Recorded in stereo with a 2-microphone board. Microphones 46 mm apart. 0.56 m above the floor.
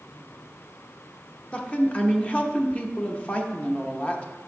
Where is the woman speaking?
25° left (ahead or behind), 0.6 m.